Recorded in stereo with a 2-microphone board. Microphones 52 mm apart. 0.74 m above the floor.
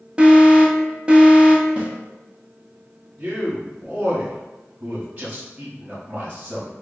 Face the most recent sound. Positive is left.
turn(degrees=-35)  # may be behind; listen again after turning